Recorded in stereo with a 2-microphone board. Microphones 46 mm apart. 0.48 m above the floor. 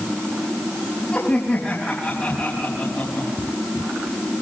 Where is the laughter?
30° left (ahead or behind), 4 m.